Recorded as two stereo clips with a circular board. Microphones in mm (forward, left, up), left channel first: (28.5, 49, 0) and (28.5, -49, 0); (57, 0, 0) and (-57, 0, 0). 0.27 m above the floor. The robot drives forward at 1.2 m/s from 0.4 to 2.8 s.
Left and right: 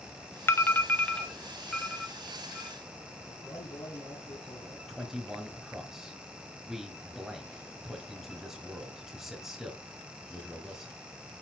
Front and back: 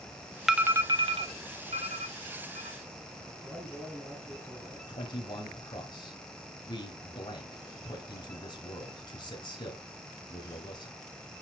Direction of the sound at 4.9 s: 5° right.